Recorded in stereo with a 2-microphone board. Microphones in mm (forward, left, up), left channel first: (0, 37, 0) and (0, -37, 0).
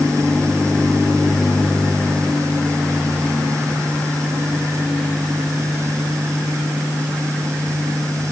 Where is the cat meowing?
I don't hear a cat meowing.